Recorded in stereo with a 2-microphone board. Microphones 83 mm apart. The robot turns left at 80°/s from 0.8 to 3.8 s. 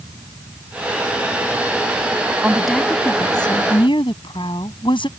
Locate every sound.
2.4 s a woman speaking: 160° right; by 5.1 s 90° left